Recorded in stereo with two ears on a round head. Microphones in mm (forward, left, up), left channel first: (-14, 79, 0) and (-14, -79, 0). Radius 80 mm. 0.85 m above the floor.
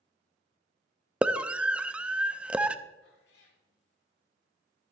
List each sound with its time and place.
1.2 s a scream: 5° right (ahead or behind), 0.5 m
3.0 s a cat meowing: 65° left (ahead or behind), 1.8 m